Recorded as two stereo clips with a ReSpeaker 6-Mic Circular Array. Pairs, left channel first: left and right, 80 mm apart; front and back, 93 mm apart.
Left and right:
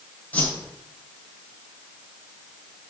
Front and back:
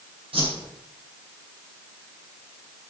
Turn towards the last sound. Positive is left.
turn(degrees=160)